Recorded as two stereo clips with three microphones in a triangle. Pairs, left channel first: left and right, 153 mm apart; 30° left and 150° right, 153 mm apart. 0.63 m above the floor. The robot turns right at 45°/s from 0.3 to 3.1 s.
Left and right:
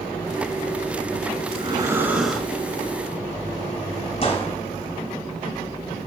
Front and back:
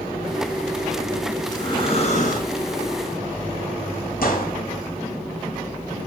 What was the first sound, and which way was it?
Breathing, 40° right.